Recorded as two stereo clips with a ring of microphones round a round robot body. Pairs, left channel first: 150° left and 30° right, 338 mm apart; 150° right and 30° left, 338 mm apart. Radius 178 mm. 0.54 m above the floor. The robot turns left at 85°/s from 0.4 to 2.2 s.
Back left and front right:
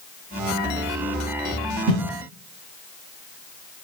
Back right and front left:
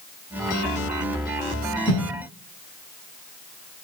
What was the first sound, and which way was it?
A whoosh, 75° right.